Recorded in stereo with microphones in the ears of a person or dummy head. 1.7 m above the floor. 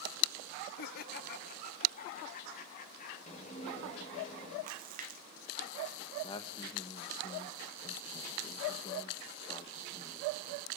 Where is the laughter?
50° left (ahead or behind), 0.8 m; by 3.2 s 45° left (ahead or behind), 4 m.